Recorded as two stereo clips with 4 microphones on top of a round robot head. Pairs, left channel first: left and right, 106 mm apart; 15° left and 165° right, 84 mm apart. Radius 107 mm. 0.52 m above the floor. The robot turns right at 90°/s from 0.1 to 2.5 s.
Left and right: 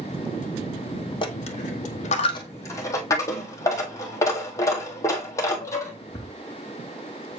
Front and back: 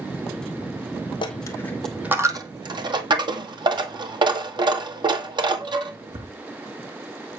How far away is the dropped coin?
About 1.8 m.